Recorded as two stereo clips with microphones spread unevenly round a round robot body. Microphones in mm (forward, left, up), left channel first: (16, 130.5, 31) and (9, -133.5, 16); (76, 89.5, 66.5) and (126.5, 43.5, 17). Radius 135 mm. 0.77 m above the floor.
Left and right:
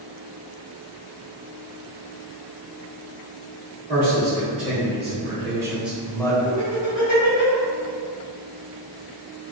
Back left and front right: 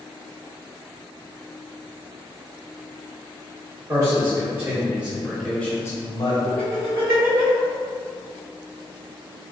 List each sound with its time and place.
3.9 s a man speaking: 30° right, 1.5 m; by 6.3 s 160° left, 0.6 m
6.4 s laughter: 75° right, 1.5 m